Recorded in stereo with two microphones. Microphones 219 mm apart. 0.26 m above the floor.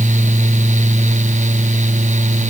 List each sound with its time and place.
Only background noise.